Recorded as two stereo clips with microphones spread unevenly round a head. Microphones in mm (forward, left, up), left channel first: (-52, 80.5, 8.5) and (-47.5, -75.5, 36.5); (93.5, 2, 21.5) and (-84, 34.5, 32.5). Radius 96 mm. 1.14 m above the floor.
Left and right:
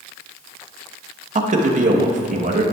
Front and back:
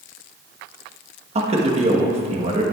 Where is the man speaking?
130° right, 1.1 m.